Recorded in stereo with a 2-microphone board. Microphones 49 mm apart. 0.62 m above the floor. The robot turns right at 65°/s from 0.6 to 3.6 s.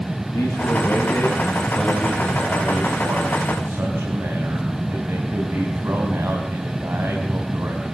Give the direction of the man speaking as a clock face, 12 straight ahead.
8 o'clock.